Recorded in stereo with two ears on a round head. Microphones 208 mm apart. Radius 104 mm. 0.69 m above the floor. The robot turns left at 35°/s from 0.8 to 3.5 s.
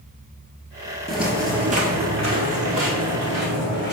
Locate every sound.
1.1 s footsteps: 5° left (ahead or behind), 0.7 m; by 3.9 s 50° right (ahead or behind), 2 m